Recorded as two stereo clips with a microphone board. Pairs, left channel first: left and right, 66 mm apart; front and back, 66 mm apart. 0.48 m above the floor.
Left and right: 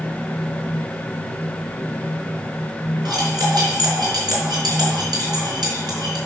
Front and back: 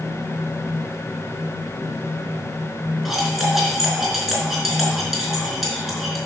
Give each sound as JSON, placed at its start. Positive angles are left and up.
{"t": 3.0, "sound": "cutlery clinking", "azimuth_deg": -90, "distance_m": 3.5}